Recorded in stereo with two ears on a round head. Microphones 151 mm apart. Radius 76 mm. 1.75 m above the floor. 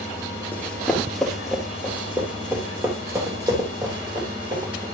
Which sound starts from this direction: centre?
Running footsteps, at 0.5 s.